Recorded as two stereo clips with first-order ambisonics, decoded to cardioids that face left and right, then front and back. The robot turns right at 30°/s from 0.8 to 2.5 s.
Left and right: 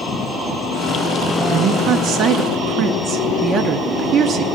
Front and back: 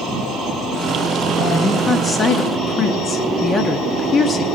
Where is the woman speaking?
90° right, 0.7 m; by 4.5 s 60° right, 0.7 m.